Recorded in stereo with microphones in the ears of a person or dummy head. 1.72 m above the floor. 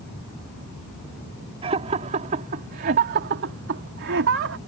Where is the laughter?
35° right (ahead or behind); by 4.6 s 75° right (ahead or behind).